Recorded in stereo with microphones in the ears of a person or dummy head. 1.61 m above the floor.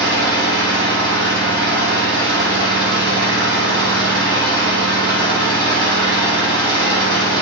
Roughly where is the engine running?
Right.